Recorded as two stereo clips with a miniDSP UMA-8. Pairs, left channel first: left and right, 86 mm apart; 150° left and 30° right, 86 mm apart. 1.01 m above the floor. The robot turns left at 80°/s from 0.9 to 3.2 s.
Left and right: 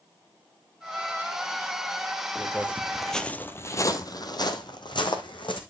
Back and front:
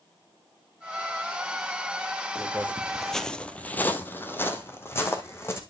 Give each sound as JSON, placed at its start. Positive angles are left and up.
{"t": 2.4, "sound": "footsteps", "azimuth_deg": -20, "distance_m": 1.1}